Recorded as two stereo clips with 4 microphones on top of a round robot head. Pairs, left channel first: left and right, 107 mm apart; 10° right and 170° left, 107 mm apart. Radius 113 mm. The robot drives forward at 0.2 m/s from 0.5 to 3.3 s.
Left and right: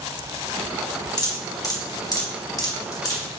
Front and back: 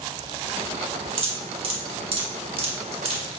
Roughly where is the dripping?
Behind left.